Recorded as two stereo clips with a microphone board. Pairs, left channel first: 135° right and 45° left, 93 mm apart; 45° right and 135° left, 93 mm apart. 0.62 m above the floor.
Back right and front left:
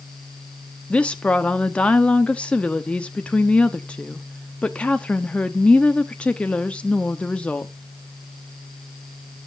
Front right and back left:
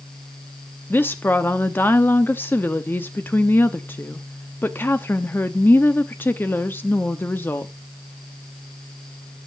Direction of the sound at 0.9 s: 75° right.